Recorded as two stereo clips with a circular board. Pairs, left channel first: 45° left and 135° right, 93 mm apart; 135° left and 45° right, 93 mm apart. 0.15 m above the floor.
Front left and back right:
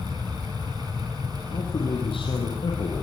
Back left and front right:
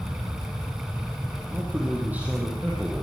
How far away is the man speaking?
About 5.5 m.